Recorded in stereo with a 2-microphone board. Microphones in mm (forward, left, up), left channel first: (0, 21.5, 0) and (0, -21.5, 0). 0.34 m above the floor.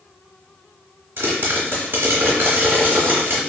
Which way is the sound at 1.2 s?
65° right (ahead or behind).